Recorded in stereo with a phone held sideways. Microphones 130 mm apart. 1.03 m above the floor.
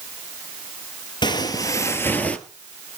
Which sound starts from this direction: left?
Footsteps, at 1.2 s.